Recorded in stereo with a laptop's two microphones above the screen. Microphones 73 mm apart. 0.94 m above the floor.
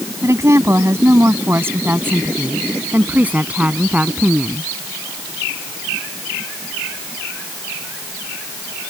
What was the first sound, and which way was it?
A woman speaking, 40° right (ahead or behind).